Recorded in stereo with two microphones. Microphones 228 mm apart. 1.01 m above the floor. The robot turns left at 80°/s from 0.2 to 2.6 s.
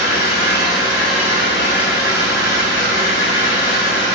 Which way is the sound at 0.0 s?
75° left.